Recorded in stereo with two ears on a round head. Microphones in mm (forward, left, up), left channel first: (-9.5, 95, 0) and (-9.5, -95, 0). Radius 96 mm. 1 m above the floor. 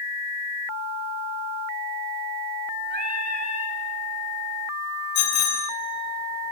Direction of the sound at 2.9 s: 40° right (ahead or behind).